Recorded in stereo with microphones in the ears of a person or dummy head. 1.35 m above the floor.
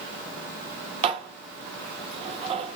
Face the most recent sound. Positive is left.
turn(degrees=-35)  # may be behind; listen again after turning